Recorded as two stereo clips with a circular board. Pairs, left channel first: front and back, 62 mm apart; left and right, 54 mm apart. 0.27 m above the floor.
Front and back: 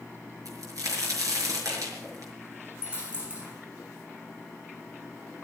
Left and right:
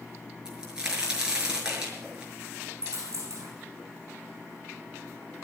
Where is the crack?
165° right, 5.5 m.